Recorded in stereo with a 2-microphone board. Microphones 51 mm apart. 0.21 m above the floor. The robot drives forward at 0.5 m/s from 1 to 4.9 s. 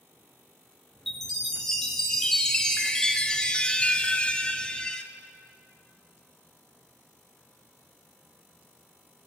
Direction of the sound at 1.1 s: 5° left (ahead or behind).